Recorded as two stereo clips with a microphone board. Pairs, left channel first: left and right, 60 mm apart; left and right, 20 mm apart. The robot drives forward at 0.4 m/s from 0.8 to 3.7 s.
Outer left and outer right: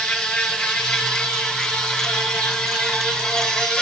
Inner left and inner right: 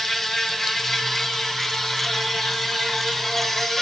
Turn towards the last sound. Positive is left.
turn(degrees=5)  # may be behind; listen again after turning